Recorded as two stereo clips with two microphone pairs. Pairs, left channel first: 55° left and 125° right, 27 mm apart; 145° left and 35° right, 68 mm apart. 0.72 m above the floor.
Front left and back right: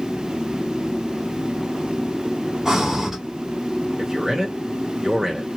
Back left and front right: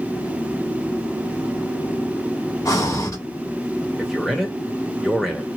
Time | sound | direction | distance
2.6 | breathing | 170° left | 1.2 m
4.0 | a man speaking | 120° right | 1.1 m